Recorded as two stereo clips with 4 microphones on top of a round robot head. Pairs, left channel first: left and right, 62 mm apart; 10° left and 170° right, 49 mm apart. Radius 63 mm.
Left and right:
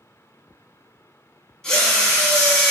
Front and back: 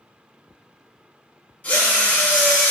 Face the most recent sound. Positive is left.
turn(degrees=20)